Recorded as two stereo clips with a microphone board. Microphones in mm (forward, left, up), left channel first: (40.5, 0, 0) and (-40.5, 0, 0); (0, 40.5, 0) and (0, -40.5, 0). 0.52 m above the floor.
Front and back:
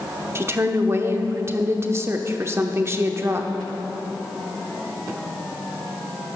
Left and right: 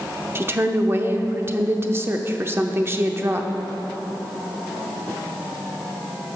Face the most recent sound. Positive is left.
turn(degrees=-135)